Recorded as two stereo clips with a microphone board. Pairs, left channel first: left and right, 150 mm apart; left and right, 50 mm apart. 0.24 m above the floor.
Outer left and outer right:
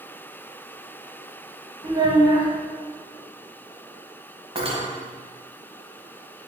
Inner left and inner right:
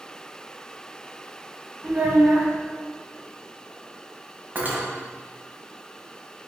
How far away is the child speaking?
About 1.0 m.